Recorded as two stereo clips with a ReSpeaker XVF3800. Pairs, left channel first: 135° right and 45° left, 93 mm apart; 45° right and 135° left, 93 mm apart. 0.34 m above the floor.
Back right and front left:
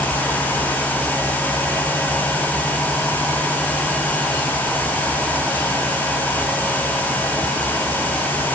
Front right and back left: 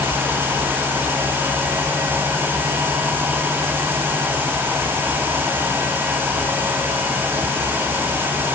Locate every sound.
Only background noise.